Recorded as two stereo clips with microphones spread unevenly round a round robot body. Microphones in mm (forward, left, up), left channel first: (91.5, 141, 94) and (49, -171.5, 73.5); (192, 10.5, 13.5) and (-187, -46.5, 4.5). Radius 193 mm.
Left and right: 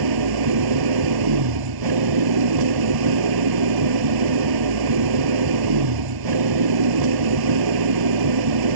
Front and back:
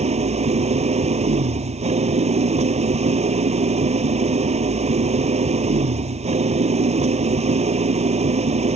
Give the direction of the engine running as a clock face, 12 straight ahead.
3 o'clock.